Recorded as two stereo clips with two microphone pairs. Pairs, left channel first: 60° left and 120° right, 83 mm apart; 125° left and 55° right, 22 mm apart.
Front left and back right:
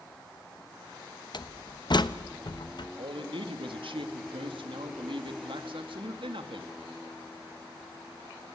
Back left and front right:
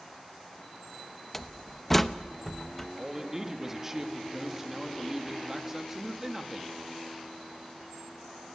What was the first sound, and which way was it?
A door slam, 50° left.